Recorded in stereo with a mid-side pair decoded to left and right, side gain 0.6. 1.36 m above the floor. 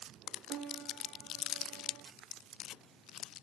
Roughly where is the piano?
Ahead right.